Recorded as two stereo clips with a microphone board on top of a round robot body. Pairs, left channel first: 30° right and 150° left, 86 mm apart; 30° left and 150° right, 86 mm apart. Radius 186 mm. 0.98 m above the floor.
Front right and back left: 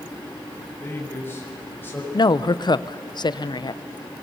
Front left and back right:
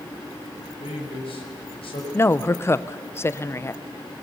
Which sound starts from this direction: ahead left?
A man speaking, at 0.8 s.